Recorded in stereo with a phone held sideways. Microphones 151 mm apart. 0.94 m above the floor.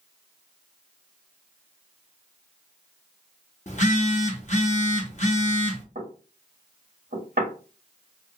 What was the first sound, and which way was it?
A phone buzzing, 50° left (ahead or behind).